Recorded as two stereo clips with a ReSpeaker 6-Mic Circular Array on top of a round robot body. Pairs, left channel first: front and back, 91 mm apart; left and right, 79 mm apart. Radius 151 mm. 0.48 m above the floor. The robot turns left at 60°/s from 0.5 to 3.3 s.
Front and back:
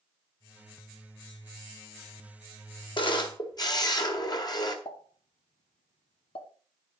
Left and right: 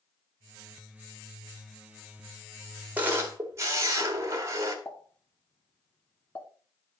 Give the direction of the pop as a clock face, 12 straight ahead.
11 o'clock.